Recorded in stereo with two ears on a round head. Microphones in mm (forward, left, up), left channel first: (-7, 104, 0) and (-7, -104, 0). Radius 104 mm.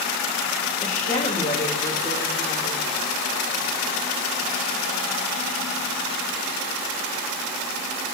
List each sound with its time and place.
0.8 s a woman speaking: 35° left (ahead or behind), 3.5 m